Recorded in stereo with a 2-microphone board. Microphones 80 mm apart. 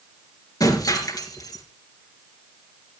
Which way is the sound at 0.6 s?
50° left (ahead or behind).